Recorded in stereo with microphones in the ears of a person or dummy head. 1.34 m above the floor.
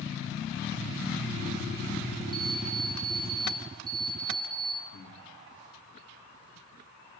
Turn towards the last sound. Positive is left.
turn(degrees=80)